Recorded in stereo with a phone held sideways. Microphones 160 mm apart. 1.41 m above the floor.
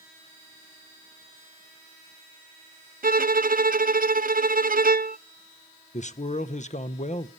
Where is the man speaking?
45° left (ahead or behind), 0.7 m.